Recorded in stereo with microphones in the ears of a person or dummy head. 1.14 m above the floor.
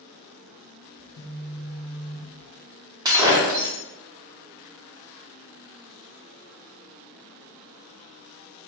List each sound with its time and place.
1.0 s a phone buzzing: 55° left (ahead or behind), 1.6 m
3.0 s breaking glass: 20° right (ahead or behind), 0.7 m